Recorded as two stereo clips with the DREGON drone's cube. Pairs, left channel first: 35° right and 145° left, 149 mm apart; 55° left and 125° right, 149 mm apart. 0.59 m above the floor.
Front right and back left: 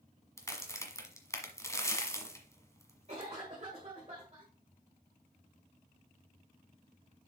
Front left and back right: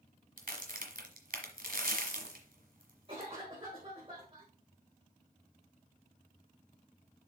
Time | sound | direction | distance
0.4 | a crack | 105° right | 1.4 m
3.1 | a cough | 175° right | 1.8 m